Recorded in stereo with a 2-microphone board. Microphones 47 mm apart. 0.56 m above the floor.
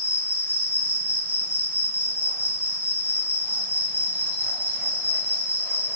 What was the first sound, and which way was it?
An insect, 50° right (ahead or behind).